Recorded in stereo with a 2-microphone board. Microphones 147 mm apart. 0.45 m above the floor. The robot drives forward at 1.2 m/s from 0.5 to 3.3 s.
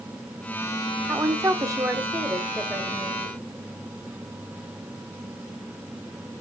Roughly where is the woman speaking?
Centre.